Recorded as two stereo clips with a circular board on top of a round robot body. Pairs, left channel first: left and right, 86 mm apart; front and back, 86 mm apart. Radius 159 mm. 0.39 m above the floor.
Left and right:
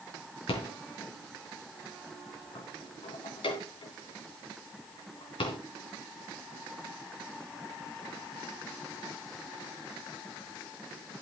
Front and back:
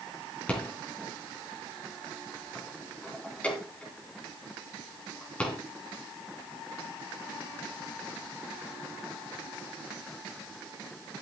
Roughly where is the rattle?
Left.